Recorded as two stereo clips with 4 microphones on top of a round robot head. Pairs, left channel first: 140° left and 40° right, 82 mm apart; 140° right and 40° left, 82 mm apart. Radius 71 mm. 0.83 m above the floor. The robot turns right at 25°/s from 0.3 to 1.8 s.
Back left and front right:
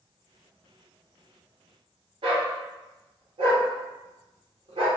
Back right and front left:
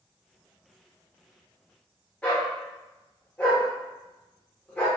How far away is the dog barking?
About 1.0 m.